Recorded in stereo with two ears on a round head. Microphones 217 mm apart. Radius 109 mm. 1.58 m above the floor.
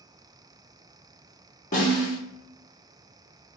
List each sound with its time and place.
1.7 s a snare drum: 30° left (ahead or behind), 1.3 m